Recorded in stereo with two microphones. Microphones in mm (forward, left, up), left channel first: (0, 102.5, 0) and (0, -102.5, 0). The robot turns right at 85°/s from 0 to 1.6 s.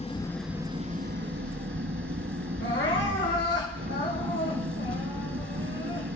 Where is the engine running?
145° left, 1.0 m; by 6.2 s 80° right, 1.0 m.